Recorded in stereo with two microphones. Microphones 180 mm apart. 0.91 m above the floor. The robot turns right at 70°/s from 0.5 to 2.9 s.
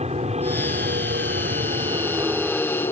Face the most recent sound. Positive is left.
turn(degrees=30)